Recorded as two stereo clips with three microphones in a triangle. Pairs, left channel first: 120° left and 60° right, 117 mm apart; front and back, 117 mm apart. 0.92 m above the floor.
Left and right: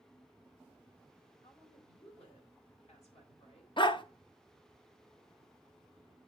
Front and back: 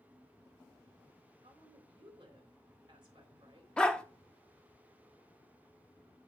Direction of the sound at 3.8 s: 80° left.